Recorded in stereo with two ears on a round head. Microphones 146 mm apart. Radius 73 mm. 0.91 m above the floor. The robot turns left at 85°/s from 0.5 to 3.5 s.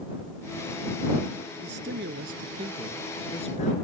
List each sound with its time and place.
1.6 s a man speaking: 65° right; by 3.7 s 135° left